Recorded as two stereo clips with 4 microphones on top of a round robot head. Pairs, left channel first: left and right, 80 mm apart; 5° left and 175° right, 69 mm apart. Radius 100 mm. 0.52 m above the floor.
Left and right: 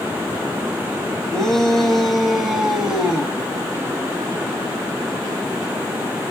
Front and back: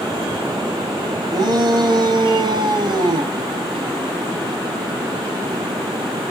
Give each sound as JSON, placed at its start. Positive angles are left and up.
{"t": 1.3, "sound": "a shout", "azimuth_deg": 175, "distance_m": 4.5}